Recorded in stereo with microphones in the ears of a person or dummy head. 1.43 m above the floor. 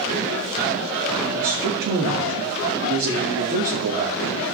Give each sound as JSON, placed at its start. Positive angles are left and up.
{"t": 1.3, "sound": "a man speaking", "side_deg": -50, "distance_m": 2.5}